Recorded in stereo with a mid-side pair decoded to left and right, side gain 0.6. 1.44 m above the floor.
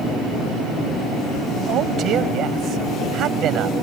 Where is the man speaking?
55° right.